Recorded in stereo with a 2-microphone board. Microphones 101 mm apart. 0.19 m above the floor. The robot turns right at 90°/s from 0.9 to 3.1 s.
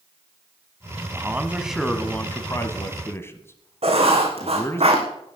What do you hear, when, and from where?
1.1 s a man speaking: 25° right (ahead or behind), 1.4 m; by 4.8 s 25° left (ahead or behind), 1.4 m
3.8 s writing: 80° right, 3 m